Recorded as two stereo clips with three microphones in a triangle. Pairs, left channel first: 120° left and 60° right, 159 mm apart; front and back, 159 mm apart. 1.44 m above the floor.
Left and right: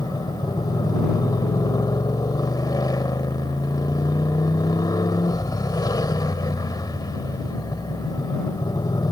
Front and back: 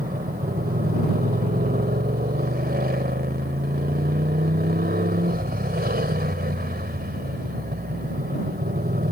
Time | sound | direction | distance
0.0 | a motorcycle | 175° right | ?